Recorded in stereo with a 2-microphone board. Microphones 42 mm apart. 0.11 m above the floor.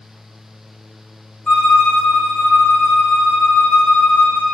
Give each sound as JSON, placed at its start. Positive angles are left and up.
{"t": 1.5, "sound": "a violin", "side_deg": 25, "distance_m": 1.3}